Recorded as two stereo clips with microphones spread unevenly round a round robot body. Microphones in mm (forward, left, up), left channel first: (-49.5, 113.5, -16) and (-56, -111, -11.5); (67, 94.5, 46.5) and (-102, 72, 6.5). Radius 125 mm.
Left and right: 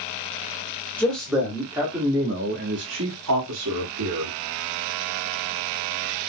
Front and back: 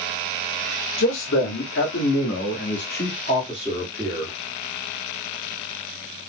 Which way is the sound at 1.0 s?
5° left.